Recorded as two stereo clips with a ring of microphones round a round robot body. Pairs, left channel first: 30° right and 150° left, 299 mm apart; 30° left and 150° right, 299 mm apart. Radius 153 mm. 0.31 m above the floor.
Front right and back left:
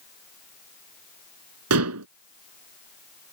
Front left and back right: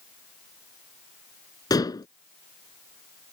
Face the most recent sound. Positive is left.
turn(degrees=110)